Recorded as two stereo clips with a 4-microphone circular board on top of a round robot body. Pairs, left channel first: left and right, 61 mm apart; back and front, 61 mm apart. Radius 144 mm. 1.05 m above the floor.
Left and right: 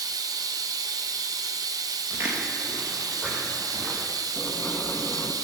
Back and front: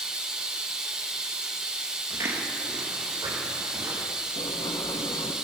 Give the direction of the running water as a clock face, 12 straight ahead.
3 o'clock.